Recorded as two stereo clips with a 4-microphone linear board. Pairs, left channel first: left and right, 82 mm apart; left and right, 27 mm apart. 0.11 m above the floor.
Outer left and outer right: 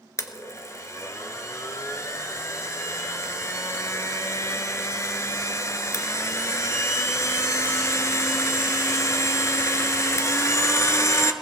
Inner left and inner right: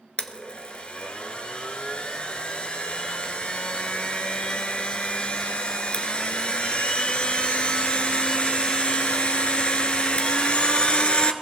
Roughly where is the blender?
Left.